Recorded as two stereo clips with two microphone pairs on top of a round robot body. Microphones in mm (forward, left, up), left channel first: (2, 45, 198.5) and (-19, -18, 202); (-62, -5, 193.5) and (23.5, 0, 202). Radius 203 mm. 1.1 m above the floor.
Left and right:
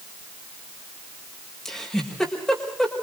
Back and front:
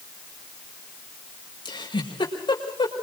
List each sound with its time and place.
1.6 s a giggle: 155° left, 6.5 m